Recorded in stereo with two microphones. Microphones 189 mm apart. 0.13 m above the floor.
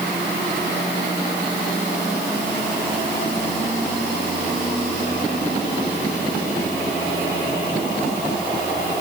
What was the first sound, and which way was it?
Only background noise.